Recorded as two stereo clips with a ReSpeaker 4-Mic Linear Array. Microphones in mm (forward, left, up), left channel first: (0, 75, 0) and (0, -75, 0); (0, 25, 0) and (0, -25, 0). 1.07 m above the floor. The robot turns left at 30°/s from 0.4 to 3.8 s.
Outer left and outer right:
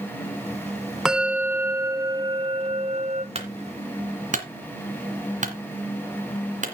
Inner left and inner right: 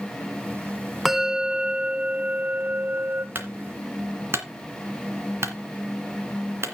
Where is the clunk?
45° right (ahead or behind), 2.5 m; by 6.7 s 55° right (ahead or behind), 2.5 m.